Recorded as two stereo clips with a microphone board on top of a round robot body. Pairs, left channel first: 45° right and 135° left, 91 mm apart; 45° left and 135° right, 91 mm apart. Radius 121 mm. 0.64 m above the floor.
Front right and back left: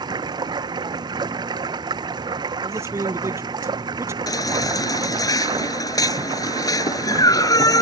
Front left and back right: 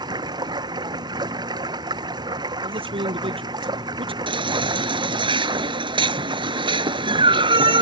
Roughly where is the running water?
Behind.